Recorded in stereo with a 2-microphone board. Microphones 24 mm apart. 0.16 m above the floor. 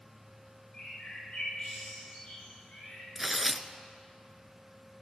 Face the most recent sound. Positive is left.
turn(degrees=-5)  # may be behind; listen again after turning